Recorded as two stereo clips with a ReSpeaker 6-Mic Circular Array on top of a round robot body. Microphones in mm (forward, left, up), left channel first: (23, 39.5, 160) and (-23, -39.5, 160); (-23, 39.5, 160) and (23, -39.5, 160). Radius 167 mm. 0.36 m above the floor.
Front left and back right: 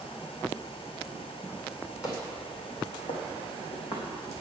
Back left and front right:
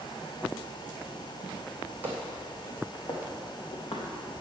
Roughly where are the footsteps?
Ahead.